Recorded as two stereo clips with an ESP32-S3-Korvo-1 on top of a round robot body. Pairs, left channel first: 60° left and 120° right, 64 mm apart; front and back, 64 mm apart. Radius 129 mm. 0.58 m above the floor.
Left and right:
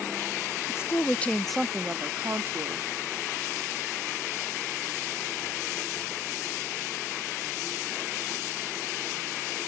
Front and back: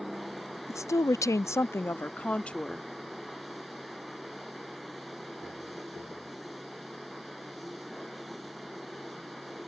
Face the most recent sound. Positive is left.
turn(degrees=-80)